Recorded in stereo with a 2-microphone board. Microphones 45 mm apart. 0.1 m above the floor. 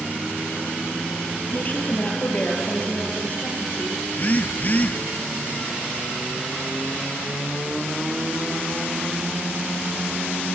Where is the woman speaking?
40° left (ahead or behind), 2.5 m.